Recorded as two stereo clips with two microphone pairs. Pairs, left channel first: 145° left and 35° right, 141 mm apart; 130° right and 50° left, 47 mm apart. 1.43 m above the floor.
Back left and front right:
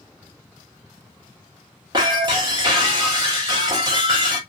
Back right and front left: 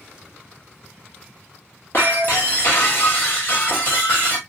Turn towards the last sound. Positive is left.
turn(degrees=-95)